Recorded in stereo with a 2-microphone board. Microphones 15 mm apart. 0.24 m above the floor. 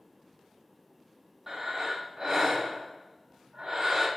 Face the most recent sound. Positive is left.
turn(degrees=-30)  # may be behind; listen again after turning